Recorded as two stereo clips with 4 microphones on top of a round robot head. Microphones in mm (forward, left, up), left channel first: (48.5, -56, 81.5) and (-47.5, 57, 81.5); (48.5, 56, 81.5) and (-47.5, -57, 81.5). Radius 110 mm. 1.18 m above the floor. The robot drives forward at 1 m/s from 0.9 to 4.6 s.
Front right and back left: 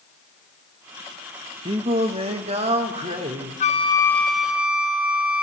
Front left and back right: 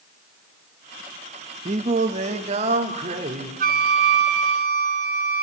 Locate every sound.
1.6 s singing: 175° right, 0.7 m; by 3.5 s straight behind, 2.5 m
3.6 s a flute: 95° right, 0.7 m; by 5.4 s 145° right, 1.2 m